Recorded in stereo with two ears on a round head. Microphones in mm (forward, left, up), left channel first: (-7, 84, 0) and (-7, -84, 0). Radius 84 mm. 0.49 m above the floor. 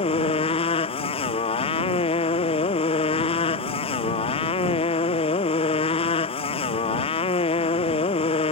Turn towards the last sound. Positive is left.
turn(degrees=30)  # may be behind; listen again after turning